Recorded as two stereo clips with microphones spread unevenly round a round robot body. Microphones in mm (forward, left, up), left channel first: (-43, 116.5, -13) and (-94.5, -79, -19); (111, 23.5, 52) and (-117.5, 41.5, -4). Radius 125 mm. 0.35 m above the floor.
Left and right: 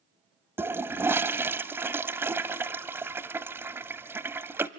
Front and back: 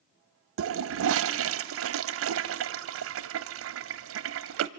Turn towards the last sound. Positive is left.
turn(degrees=175)